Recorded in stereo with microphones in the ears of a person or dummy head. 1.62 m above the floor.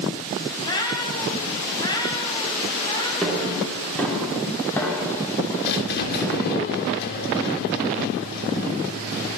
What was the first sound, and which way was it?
A cat meowing, 25° left (ahead or behind).